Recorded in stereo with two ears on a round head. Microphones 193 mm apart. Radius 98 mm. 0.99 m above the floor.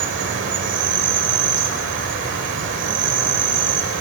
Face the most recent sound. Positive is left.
turn(degrees=-60)  # may be behind; listen again after turning